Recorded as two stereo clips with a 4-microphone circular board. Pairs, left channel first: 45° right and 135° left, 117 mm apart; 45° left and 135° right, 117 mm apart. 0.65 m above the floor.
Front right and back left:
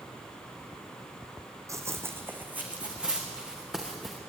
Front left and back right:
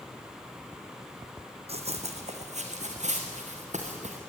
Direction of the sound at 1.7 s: 160° right.